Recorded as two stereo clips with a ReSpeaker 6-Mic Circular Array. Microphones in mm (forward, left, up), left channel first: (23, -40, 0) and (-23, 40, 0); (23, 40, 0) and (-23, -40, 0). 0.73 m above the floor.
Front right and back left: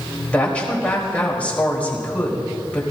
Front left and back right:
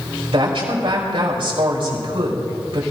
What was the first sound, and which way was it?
A woman speaking, 135° right.